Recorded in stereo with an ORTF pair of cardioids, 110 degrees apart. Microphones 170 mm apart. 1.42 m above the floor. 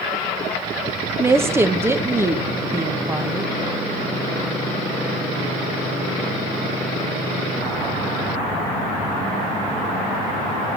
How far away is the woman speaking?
About 1.7 m.